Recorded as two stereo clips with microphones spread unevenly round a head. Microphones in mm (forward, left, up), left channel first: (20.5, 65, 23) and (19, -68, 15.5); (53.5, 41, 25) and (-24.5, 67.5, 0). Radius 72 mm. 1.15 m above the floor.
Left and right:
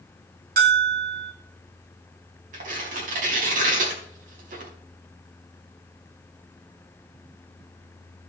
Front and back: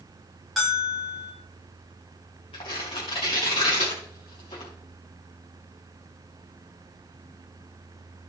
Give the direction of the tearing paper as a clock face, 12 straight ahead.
2 o'clock.